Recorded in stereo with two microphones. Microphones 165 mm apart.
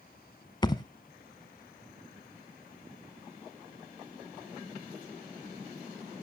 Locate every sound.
0.6 s a thud: 25° left (ahead or behind), 0.6 m